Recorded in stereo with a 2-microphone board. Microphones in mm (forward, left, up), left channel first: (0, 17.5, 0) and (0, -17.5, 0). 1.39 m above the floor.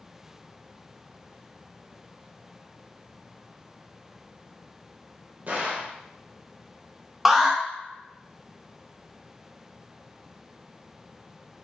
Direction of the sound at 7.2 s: 5° right (ahead or behind).